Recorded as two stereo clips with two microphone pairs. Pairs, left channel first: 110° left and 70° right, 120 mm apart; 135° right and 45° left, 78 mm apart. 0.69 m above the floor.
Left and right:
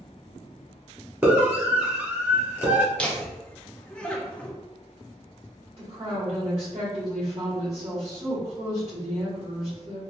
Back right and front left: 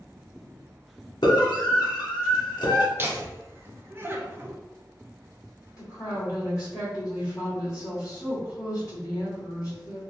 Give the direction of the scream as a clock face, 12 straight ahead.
5 o'clock.